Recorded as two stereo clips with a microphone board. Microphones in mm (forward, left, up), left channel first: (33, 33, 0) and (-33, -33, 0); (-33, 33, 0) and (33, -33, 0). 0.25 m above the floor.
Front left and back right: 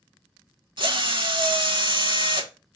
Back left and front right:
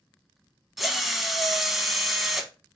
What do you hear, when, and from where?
0.8 s a drill: 135° right, 0.7 m